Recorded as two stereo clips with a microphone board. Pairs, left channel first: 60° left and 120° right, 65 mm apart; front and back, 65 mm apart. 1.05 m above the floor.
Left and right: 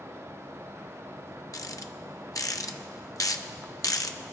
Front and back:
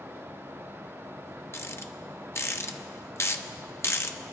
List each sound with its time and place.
1.5 s a rattle: 45° left, 0.7 m